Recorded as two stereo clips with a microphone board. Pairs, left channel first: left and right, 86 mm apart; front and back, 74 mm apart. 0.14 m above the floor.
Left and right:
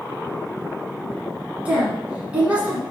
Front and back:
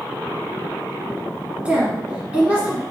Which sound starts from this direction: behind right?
A woman speaking, at 1.6 s.